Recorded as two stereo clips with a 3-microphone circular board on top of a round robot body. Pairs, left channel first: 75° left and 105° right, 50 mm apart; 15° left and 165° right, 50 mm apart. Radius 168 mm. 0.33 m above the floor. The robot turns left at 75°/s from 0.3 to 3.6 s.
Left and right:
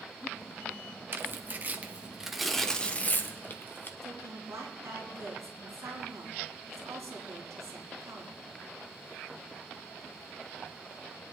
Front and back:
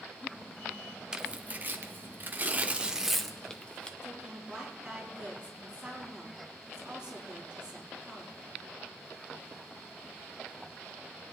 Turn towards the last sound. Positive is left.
turn(degrees=-90)